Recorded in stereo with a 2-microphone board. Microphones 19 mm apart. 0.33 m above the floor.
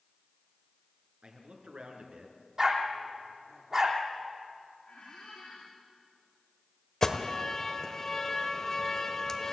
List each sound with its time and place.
1.2 s a man speaking: 70° right (ahead or behind), 4.5 m; by 2.4 s 75° right (ahead or behind), 3.5 m
2.6 s a dog barking: 30° right (ahead or behind), 3.5 m
4.9 s a squeak: 70° left (ahead or behind), 8 m
7.0 s an alarm: 20° left (ahead or behind), 1.5 m